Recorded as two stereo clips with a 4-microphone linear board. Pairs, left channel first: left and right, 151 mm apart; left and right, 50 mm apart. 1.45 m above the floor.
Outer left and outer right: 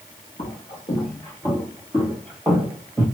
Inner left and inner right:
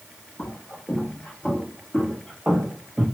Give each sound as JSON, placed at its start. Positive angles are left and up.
{"t": 0.4, "sound": "footsteps", "side_deg": 40, "distance_m": 2.0}